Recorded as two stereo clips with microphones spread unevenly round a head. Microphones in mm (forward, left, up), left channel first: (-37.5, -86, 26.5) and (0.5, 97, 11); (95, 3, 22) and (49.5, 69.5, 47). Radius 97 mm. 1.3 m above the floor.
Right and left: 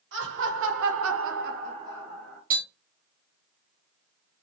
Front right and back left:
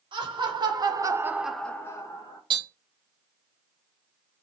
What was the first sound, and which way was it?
Laughter, 105° left.